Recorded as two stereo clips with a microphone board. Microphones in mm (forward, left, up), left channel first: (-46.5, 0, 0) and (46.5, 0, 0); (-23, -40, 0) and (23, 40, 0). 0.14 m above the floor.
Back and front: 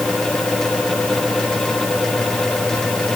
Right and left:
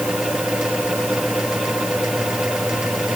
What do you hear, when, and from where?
Only background noise.